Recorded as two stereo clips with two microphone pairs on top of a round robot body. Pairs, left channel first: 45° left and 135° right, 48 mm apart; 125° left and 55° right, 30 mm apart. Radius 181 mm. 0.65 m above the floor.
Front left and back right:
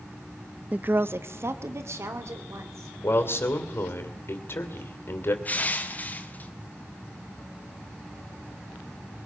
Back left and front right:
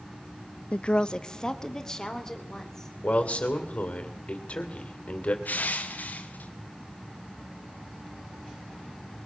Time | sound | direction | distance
0.7 | a woman speaking | 160° left | 0.6 m
3.0 | a man speaking | 80° left | 3 m
5.5 | crushing | 100° left | 1.5 m